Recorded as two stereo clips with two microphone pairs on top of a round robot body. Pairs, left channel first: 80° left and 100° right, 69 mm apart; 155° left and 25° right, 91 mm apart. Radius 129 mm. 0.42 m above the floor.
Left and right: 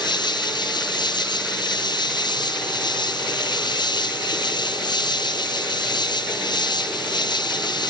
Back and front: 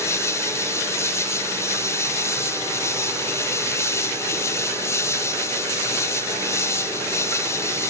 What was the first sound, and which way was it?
An insect, 90° left.